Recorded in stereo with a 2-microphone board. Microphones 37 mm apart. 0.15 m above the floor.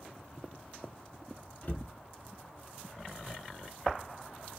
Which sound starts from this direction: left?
A cupboard door, at 1.6 s.